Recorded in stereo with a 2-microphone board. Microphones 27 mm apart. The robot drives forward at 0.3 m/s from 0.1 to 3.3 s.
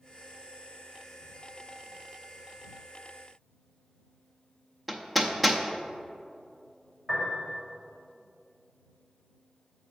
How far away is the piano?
About 2.5 m.